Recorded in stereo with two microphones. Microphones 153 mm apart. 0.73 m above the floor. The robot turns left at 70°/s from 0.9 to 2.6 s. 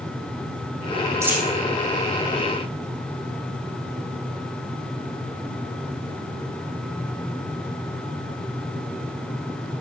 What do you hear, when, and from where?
1.2 s a dropped coin: 20° right (ahead or behind), 6.5 m; by 1.5 s centre (ahead or behind), 6.5 m